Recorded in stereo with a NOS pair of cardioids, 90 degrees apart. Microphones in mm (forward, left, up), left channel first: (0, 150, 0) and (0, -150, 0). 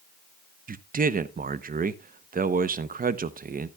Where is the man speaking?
30° right, 0.8 m.